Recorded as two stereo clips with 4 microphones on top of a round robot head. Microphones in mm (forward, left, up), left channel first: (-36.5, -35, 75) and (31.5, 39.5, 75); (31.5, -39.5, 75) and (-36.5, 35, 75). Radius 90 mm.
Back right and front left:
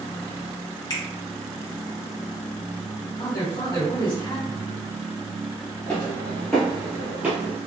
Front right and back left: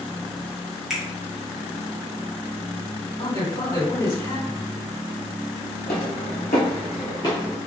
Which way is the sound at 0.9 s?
145° right.